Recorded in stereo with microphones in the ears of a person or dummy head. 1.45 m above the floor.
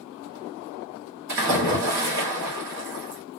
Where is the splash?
60° right (ahead or behind), 1.2 m.